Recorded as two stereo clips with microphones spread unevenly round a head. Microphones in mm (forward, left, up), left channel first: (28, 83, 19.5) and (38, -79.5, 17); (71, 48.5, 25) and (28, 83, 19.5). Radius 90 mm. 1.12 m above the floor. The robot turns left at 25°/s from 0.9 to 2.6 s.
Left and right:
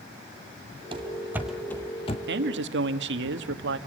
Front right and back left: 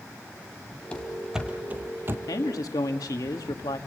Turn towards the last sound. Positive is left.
turn(degrees=-80)